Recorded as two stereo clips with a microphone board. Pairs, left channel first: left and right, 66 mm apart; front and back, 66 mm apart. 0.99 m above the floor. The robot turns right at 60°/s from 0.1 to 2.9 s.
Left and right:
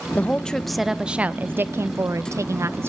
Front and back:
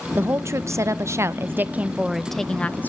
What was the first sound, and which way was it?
A woman speaking, 145° left.